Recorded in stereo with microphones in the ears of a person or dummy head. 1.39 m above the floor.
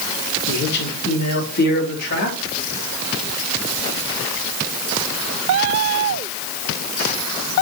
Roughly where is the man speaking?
Left.